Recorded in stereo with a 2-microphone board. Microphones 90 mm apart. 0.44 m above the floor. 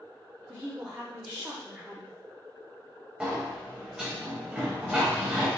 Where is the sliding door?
5° right (ahead or behind), 0.8 m.